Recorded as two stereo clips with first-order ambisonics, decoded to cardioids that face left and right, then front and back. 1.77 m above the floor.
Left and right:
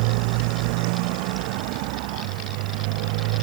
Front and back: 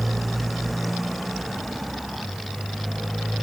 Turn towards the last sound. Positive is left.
turn(degrees=-90)